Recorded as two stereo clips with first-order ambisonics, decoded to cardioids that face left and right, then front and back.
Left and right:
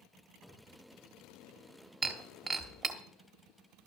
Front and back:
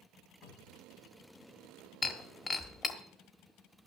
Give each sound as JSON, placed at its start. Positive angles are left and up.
{"t": 0.4, "sound": "a cupboard door", "azimuth_deg": 5, "distance_m": 3.0}
{"t": 2.0, "sound": "breaking glass", "azimuth_deg": -55, "distance_m": 1.1}